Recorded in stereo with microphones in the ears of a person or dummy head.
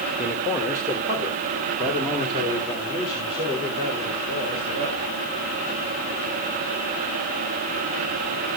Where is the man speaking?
5° right (ahead or behind), 2 m; by 5.1 s 30° right (ahead or behind), 6.5 m.